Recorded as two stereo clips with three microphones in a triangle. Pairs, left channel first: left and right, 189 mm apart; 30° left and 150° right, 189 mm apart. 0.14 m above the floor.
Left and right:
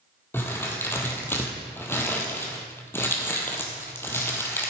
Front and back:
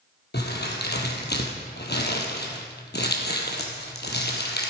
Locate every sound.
0.3 s crumpling: 15° left, 1.6 m